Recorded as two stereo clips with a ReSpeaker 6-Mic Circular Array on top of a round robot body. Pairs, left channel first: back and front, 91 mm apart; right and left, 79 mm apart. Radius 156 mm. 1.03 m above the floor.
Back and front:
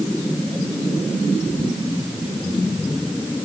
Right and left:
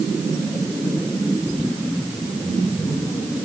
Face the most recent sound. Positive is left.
No sound to turn to.